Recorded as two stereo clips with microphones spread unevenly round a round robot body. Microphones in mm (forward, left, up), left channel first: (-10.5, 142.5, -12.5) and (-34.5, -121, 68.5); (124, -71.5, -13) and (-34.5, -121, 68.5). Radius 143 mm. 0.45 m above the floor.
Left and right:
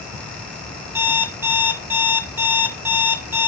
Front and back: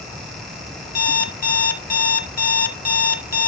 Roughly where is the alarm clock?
Ahead.